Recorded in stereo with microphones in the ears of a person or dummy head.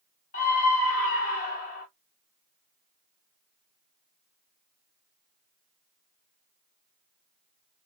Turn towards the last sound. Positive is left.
turn(degrees=40)  # may be behind; listen again after turning